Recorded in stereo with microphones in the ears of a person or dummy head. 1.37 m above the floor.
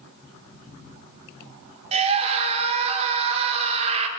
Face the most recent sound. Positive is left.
turn(degrees=-30)  # may be behind; listen again after turning